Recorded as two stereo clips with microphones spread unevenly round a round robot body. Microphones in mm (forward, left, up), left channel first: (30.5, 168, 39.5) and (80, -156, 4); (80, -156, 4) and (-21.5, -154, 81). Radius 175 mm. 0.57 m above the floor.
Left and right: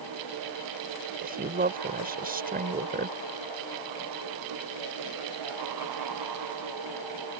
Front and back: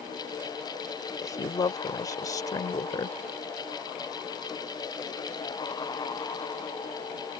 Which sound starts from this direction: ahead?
A woman speaking, at 1.2 s.